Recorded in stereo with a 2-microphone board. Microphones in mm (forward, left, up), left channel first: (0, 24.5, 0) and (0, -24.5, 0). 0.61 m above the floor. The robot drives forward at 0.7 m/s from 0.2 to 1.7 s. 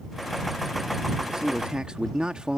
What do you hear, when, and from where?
1.3 s a man speaking: 15° right (ahead or behind); by 2.6 s 20° right (ahead or behind)